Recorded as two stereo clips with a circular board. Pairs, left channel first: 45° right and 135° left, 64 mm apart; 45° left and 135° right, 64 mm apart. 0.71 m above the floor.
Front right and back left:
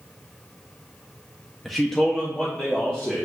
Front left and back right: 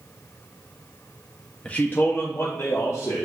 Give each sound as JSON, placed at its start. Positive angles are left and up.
{"t": 1.6, "sound": "a man speaking", "azimuth_deg": 45, "distance_m": 0.5}